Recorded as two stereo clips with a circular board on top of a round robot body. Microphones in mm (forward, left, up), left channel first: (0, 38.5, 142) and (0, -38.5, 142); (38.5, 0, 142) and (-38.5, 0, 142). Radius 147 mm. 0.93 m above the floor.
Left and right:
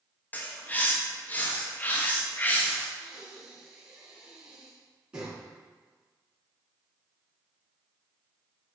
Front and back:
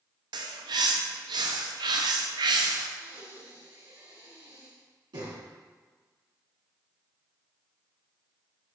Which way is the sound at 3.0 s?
165° right.